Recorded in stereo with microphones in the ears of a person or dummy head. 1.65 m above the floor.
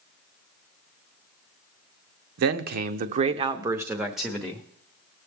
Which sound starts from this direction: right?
A man speaking, at 2.4 s.